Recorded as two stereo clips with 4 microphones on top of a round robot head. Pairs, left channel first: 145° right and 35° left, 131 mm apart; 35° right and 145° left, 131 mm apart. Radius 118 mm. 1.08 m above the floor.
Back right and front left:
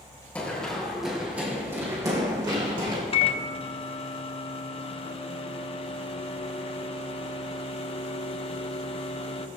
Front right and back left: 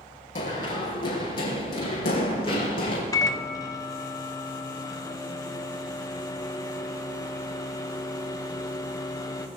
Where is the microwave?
100° right, 0.9 m.